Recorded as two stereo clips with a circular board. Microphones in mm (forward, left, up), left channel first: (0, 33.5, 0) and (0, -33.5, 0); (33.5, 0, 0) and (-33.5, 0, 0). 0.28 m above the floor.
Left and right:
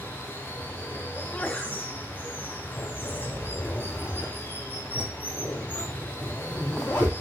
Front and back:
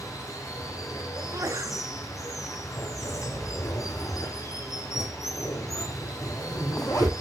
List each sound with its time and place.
0.0 s running water: 30° left, 3 m
1.1 s a sneeze: 160° left, 2.5 m
2.8 s a zipper: 25° left, 6.5 m